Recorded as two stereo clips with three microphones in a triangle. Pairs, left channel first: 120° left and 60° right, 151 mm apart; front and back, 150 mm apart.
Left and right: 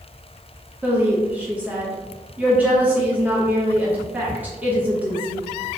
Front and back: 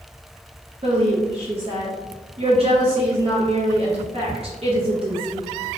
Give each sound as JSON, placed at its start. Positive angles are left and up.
{"t": 0.8, "sound": "a woman speaking", "azimuth_deg": -140, "distance_m": 0.7}